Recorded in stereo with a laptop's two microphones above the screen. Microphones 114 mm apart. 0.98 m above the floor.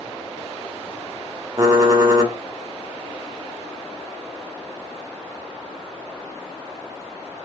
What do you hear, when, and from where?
1.6 s typing on a keyboard: 30° right (ahead or behind), 1.4 m